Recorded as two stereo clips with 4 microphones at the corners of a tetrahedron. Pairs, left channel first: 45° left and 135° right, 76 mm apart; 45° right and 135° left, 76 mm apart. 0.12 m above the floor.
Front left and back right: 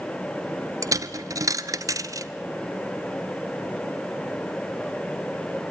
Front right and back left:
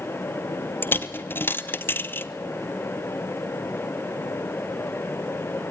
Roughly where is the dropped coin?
Right.